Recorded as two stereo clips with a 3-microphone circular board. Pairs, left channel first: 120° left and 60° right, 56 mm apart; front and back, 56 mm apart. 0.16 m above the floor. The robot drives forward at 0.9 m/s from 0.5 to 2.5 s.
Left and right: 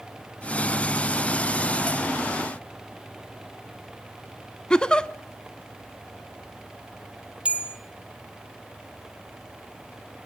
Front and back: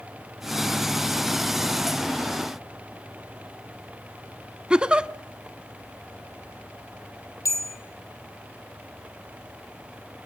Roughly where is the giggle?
Behind left.